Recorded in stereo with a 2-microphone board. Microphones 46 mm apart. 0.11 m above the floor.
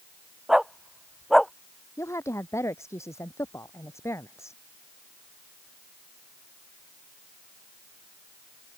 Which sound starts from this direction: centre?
A dog barking, at 0.5 s.